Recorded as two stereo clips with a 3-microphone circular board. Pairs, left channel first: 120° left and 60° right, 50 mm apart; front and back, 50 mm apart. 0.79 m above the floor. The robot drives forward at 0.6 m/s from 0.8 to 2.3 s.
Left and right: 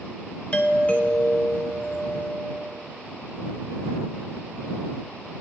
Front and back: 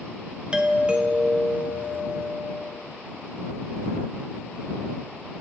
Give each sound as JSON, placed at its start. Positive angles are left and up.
{"t": 0.5, "sound": "a doorbell", "azimuth_deg": 140, "distance_m": 1.0}